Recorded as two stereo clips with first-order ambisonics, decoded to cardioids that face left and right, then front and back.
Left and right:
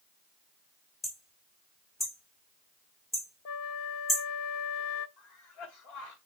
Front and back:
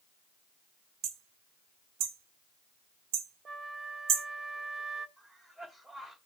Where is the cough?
95° left, 3 m.